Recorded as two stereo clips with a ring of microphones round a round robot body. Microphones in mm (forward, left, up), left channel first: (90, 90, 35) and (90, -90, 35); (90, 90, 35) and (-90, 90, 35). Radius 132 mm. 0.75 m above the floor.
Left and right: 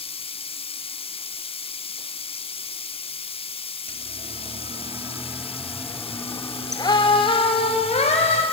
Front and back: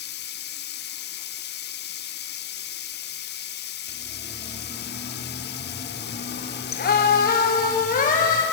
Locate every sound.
0.0 s running water: 30° left, 0.8 m
3.9 s a siren: 55° right, 2.5 m; by 8.4 s 40° left, 5 m